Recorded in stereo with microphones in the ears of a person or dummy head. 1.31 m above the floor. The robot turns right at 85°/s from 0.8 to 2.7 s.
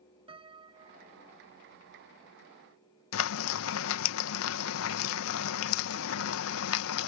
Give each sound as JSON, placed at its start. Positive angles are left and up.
{"t": 0.3, "sound": "a piano", "azimuth_deg": -145}
{"t": 3.1, "sound": "frying", "side_deg": 80}